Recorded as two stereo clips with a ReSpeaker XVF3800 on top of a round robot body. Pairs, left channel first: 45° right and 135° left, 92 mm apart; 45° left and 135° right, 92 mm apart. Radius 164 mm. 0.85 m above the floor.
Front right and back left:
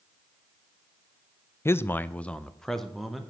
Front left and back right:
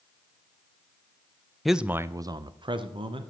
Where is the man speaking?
40° right, 0.6 m; by 3.3 s 135° right, 1.1 m.